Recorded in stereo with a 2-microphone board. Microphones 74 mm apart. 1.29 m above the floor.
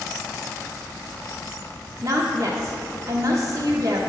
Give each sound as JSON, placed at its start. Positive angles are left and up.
{"t": 2.0, "sound": "a woman speaking", "side_deg": -50, "distance_m": 0.7}